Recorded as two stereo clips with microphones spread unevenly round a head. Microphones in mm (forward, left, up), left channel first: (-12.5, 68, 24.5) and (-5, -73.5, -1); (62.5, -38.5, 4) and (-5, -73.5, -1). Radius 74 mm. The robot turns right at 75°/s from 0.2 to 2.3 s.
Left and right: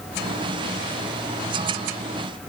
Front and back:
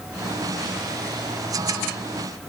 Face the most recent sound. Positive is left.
No sound to turn to.